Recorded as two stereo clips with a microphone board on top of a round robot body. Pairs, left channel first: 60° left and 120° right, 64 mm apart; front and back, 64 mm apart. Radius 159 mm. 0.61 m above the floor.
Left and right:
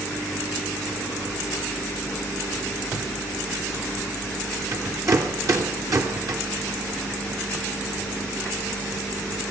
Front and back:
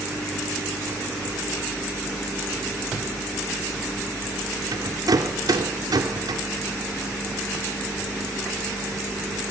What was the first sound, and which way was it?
A rattle, 155° right.